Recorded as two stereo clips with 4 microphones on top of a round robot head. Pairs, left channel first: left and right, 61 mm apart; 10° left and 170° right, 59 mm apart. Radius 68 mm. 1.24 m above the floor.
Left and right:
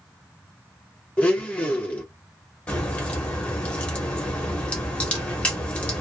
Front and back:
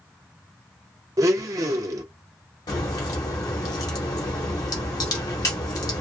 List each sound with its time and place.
1.2 s a blender: 160° left, 0.5 m
2.7 s a crack: 20° left, 0.8 m